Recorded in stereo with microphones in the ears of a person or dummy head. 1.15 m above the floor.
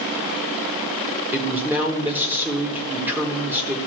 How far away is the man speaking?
About 1.6 m.